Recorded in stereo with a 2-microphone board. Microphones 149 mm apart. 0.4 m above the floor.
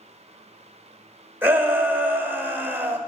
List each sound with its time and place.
1.4 s a shout: 15° right (ahead or behind), 1.6 m